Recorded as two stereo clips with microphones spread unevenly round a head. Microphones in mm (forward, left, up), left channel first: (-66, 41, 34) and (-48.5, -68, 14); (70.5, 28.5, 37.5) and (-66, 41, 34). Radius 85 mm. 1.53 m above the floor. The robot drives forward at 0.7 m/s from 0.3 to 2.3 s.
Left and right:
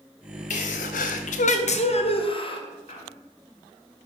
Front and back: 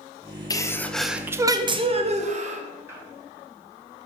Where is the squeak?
100° left, 2 m.